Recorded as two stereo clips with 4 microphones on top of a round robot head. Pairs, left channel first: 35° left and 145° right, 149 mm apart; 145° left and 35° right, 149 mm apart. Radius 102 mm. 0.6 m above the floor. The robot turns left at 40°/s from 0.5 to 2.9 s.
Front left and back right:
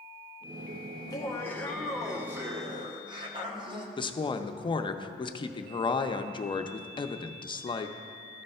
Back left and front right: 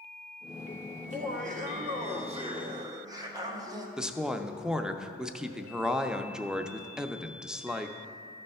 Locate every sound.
1.0 s laughter: 20° right, 1.5 m; by 3.9 s 95° right, 1.5 m
4.0 s a woman speaking: 45° left, 0.6 m